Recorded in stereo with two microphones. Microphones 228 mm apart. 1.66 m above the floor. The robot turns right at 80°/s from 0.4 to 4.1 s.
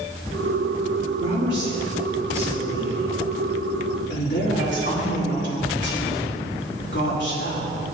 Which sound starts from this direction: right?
A woman speaking, at 1.2 s.